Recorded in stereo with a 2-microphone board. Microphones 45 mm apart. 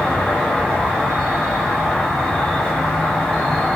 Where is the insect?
15° left (ahead or behind), 1.0 m.